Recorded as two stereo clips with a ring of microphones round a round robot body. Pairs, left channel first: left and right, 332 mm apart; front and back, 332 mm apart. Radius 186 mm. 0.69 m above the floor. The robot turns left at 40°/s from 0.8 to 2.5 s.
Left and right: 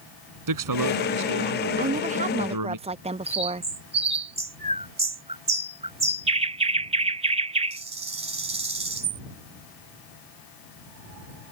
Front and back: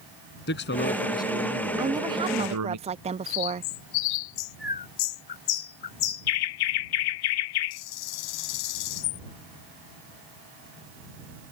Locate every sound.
0.5 s a man speaking: 65° right; by 2.8 s 130° right
1.8 s a woman speaking: 105° right; by 3.7 s 135° right
3.3 s a bird: 20° right